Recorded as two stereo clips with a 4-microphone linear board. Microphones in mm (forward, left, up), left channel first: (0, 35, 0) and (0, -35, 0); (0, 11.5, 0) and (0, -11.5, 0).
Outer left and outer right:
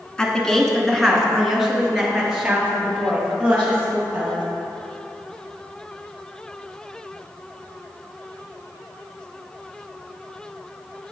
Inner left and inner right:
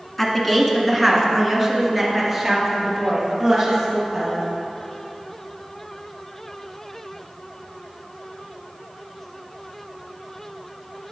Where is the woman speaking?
10° left (ahead or behind), 1.2 m; by 4.4 s 15° right (ahead or behind), 3 m.